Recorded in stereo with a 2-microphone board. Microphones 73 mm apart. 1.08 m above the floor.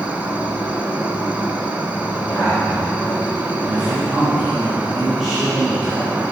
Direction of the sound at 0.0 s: 20° right (ahead or behind).